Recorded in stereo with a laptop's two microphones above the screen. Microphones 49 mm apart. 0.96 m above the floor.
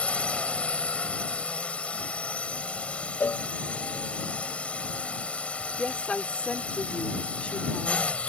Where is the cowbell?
45° left (ahead or behind).